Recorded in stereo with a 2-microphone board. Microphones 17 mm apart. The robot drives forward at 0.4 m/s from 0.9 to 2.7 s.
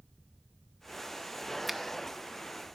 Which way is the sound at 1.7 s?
5° right (ahead or behind).